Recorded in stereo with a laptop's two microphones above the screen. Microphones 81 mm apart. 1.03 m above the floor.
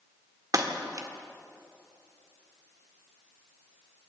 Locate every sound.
0.5 s breaking glass: 45° right (ahead or behind), 1.8 m